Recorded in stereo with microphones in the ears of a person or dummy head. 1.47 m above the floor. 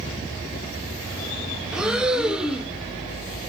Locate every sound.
1.7 s breathing: 5° right (ahead or behind), 0.9 m